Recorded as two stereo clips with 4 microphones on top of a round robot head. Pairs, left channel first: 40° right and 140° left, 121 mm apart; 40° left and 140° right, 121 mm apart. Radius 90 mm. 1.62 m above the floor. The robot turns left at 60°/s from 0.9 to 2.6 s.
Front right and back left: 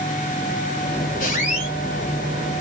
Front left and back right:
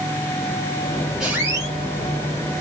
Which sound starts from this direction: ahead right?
A squeak, at 1.2 s.